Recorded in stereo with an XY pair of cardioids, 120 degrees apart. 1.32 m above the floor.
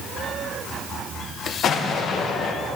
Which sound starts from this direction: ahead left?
An explosion, at 1.6 s.